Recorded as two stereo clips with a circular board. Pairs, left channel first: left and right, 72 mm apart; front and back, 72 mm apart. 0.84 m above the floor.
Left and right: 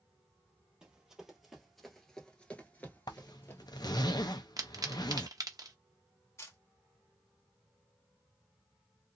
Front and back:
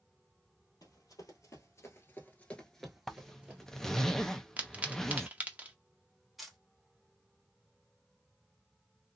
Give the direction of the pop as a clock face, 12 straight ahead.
4 o'clock.